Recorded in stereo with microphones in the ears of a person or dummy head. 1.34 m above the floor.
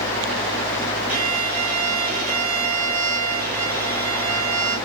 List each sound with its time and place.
1.1 s a violin: 45° right (ahead or behind), 9 m